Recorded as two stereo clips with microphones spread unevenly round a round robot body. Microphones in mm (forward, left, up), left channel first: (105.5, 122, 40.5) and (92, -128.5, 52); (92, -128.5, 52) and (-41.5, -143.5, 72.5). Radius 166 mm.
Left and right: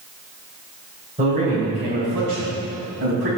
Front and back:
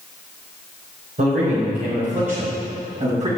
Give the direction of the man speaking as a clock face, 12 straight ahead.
5 o'clock.